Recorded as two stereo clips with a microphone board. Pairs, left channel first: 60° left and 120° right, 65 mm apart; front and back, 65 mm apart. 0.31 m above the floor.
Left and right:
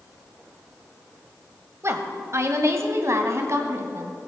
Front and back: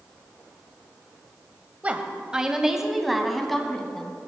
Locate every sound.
1.8 s a woman speaking: 120° right, 1.4 m; by 4.2 s 80° right, 2.5 m